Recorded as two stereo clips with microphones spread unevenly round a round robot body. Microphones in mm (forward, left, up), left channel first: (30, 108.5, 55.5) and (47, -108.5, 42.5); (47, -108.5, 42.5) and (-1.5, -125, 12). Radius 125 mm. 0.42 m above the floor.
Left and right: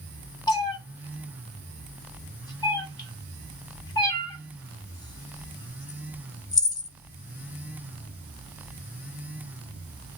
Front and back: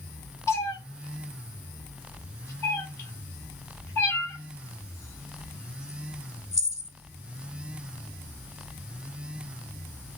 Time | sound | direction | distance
0.5 | a cat meowing | 20° left | 0.8 m